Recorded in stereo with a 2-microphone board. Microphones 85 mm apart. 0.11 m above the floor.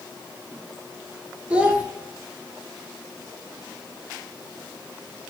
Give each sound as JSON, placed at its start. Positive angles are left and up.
{"t": 1.5, "sound": "a child speaking", "side_deg": -15, "distance_m": 0.9}